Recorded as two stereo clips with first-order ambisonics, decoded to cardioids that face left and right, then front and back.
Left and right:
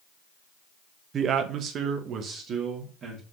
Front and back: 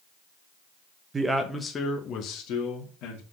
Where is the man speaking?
120° right, 1.0 m; by 3.2 s 35° right, 2.5 m.